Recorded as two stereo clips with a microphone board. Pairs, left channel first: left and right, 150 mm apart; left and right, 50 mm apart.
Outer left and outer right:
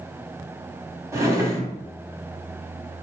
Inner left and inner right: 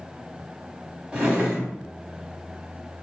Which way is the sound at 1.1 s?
20° right (ahead or behind).